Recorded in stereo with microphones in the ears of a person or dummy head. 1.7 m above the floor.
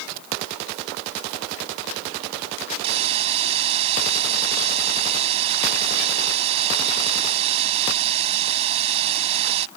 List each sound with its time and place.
2.8 s a hiss: 35° right (ahead or behind)